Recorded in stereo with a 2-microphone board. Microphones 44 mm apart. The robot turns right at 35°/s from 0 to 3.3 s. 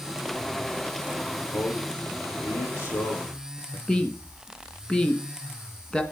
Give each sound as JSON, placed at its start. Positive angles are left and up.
{"t": 1.5, "sound": "a man speaking", "side_deg": 45, "distance_m": 4.5}
{"t": 3.9, "sound": "a woman speaking", "side_deg": 20, "distance_m": 1.8}